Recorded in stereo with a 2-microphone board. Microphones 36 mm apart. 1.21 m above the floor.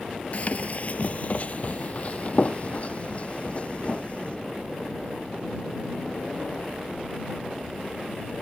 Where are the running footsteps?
40° left (ahead or behind); by 4.4 s 30° left (ahead or behind).